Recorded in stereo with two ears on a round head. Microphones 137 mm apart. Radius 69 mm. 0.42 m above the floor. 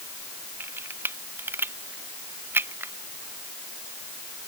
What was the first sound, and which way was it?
A camera shutter, 15° right (ahead or behind).